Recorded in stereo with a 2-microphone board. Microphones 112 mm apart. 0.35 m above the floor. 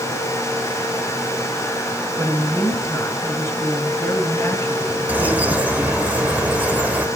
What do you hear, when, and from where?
2.2 s a woman speaking: 20° left (ahead or behind), 3.5 m
5.1 s a bird: 15° right (ahead or behind), 1.4 m